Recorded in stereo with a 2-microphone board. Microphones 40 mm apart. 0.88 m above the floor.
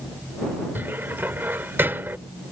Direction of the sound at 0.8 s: 65° right (ahead or behind).